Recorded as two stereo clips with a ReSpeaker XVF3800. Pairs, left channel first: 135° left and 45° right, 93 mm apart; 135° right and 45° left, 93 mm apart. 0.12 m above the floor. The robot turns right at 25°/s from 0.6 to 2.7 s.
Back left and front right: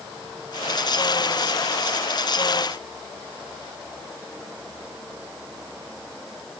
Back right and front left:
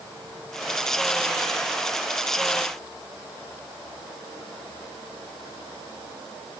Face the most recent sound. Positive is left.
No sound to turn to.